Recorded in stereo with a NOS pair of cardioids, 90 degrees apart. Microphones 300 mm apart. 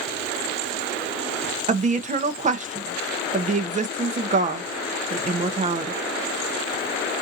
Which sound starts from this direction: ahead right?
A woman speaking, at 1.7 s.